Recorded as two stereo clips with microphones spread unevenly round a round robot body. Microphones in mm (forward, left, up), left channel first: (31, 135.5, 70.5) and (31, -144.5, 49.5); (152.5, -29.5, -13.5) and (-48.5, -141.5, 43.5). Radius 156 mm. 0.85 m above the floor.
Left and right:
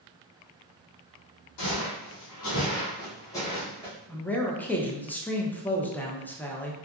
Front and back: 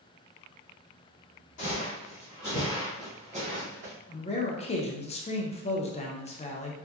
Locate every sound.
1.6 s footsteps: 90° left, 1.6 m; by 3.9 s 175° right, 1.6 m
4.1 s a man speaking: 5° left, 0.7 m